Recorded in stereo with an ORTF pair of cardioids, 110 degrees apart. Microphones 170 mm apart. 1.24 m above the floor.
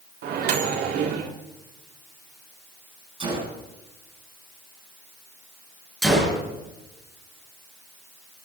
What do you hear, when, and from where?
0.2 s a microwave: 70° right, 3 m
3.2 s a gunshot: 30° right, 9.5 m
6.0 s a gunshot: straight ahead, 7 m